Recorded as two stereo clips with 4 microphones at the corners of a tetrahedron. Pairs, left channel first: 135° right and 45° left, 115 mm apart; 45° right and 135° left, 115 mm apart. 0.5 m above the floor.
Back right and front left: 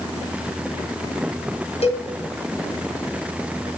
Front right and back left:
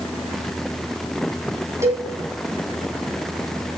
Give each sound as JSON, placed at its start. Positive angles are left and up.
{"t": 1.8, "sound": "a cowbell", "azimuth_deg": -160, "distance_m": 2.5}